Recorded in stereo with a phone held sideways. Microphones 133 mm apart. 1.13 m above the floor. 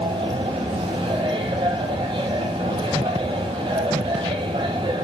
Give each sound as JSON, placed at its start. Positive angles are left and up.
{"t": 0.0, "sound": "a machine running", "side_deg": -40, "distance_m": 4.5}